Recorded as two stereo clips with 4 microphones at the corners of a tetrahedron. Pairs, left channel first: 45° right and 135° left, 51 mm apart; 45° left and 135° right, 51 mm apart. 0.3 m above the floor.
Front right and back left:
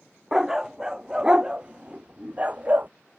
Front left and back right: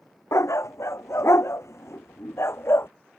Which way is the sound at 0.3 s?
50° left.